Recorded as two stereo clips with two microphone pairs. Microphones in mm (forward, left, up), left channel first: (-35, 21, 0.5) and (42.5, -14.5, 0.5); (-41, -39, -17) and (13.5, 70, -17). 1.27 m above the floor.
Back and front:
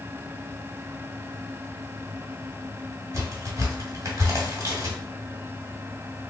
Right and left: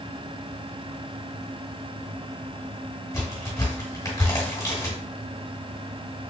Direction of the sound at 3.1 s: 60° right.